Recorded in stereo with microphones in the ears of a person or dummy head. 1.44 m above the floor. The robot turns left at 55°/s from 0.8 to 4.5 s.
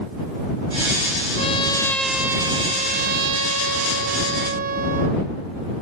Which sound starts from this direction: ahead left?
A trumpet, at 1.4 s.